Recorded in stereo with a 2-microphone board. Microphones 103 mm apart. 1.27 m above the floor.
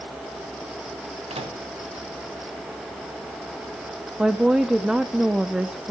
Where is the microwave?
85° right, 1.7 m.